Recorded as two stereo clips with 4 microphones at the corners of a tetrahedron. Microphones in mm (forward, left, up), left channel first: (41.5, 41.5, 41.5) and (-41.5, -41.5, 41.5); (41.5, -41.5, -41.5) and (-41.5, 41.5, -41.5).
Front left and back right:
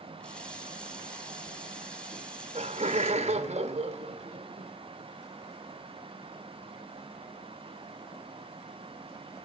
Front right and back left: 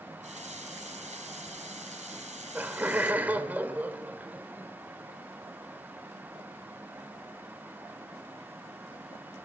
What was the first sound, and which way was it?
A running tap, 125° left.